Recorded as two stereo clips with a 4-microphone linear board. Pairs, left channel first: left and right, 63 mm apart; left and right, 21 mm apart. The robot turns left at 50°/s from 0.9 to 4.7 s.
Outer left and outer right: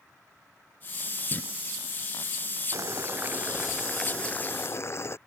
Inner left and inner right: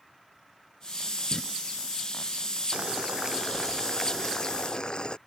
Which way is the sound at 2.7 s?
125° right.